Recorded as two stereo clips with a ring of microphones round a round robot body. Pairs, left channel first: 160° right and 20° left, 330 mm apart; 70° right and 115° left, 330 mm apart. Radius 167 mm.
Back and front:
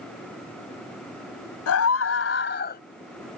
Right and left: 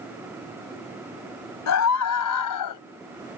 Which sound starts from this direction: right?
A scream, at 1.7 s.